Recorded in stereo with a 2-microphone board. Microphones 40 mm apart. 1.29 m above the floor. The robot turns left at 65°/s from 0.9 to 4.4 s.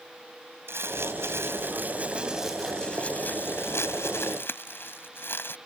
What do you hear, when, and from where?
0.7 s crumpling: 70° right; by 5.6 s 65° left